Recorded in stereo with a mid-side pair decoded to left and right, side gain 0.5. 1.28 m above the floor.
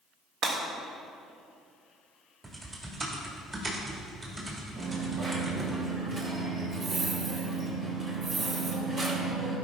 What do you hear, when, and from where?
0.4 s breaking glass: 60° right, 2 m
2.4 s typing on a keyboard: 30° right, 2 m
4.8 s a dropped coin: 50° right, 1.8 m